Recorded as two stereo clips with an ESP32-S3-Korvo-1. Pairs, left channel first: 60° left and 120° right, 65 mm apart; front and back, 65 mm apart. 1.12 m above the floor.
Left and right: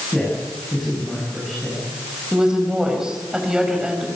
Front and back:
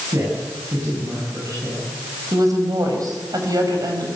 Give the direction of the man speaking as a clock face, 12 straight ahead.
7 o'clock.